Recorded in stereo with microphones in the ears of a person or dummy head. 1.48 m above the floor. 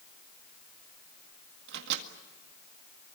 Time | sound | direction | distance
1.7 | a microwave | 65° right (ahead or behind) | 1.9 m